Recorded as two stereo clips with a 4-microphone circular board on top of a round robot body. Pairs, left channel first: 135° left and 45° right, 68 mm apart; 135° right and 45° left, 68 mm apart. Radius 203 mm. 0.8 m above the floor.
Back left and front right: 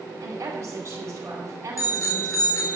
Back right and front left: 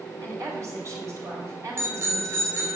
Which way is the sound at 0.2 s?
5° left.